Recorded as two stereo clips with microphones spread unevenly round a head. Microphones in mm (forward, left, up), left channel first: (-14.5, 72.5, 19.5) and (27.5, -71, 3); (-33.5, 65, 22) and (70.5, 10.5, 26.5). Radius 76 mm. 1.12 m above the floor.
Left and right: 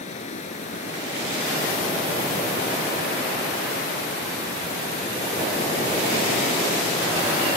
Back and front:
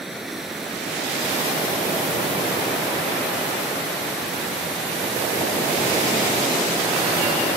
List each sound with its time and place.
0.0 s running water: 60° left